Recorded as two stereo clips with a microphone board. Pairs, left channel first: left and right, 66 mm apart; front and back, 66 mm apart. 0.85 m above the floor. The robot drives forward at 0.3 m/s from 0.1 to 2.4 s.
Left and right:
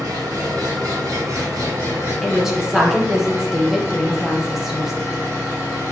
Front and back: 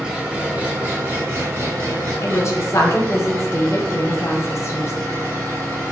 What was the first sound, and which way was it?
An engine running, 100° right.